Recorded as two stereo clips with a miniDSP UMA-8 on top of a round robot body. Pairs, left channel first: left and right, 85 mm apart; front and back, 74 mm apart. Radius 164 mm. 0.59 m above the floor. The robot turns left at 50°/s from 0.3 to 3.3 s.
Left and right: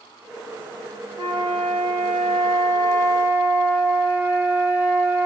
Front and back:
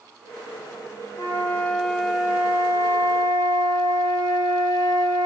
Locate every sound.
1.2 s a flute: 45° right, 1.8 m; by 5.3 s 155° right, 1.8 m